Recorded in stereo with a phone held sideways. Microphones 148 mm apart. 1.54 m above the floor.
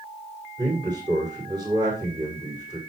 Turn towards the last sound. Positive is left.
turn(degrees=-30)  # may be behind; listen again after turning